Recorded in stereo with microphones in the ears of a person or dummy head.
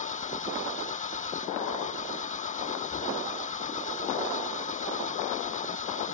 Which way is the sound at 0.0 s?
40° left (ahead or behind).